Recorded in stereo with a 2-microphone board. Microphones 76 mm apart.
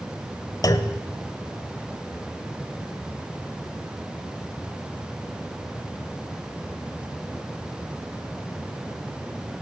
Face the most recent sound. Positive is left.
turn(degrees=50)  # may be behind; listen again after turning